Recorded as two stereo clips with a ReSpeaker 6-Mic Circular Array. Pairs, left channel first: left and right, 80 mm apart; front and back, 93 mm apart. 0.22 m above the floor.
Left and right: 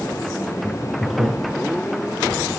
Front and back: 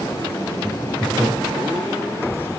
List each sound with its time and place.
0.6 s laughter: 125° right, 4 m